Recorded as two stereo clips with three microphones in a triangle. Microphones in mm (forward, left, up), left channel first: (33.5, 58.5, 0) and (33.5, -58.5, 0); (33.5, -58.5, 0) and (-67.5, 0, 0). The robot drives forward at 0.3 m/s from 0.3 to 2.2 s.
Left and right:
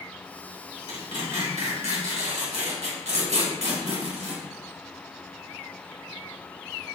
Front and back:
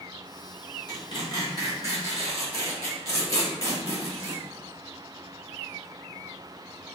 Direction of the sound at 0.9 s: 80° right.